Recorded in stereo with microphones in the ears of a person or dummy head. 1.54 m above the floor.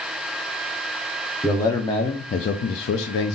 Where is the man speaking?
10° left (ahead or behind), 0.7 m; by 3.4 s 60° left (ahead or behind), 0.7 m.